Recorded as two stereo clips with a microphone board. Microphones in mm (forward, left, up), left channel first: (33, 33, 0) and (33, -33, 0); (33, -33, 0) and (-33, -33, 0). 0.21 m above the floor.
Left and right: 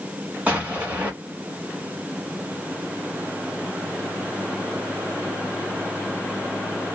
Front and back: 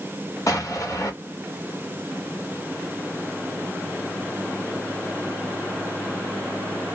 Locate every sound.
0.5 s an explosion: 25° right, 1.1 m